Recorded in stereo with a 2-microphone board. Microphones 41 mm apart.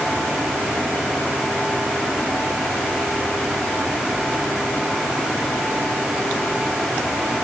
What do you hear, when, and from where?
Only background noise.